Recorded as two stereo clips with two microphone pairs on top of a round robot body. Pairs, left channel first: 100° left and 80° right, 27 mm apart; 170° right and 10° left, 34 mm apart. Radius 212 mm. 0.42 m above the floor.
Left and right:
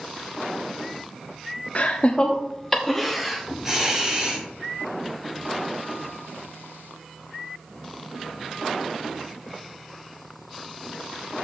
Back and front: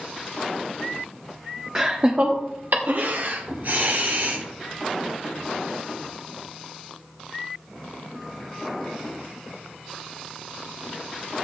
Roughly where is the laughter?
Left.